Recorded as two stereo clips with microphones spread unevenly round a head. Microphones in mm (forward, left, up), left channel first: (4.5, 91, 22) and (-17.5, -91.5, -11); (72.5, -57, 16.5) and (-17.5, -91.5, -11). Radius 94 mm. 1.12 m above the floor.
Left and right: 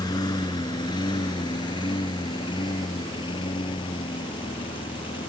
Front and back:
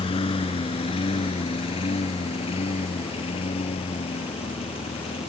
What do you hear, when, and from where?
0.0 s a lawn mower: 15° left; by 5.3 s 20° left